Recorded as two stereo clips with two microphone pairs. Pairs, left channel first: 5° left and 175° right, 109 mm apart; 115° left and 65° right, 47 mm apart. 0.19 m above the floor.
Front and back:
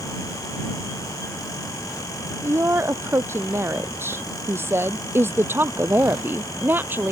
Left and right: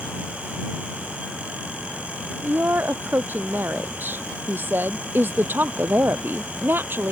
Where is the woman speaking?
110° right; by 7.1 s 105° right.